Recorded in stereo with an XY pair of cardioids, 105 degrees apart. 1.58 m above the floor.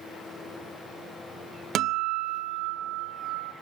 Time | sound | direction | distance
1.8 | a guitar | 70° right | 1.0 m